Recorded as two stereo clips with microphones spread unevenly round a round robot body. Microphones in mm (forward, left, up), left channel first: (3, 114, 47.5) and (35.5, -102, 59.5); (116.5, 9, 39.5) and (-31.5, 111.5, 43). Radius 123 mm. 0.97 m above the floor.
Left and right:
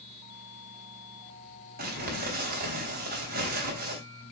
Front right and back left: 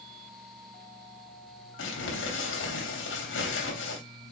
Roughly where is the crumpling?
Ahead right.